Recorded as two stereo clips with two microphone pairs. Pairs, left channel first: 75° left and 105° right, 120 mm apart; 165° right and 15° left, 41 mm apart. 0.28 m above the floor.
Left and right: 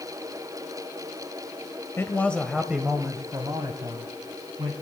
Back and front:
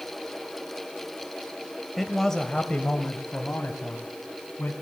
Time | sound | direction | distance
2.0 | a man speaking | 110° left | 0.9 m